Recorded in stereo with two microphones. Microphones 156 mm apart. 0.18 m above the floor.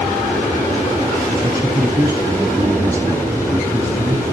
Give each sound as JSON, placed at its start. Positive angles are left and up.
{"t": 1.4, "sound": "a man speaking", "side_deg": -20, "distance_m": 1.2}